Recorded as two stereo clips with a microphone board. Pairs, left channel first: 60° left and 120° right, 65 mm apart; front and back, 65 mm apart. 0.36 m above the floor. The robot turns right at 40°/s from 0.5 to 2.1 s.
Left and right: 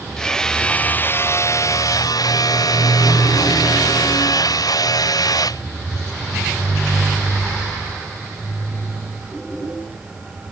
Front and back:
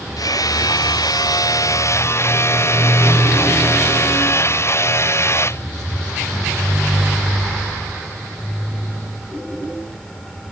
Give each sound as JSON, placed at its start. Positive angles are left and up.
{"t": 0.2, "sound": "hammering", "azimuth_deg": -20}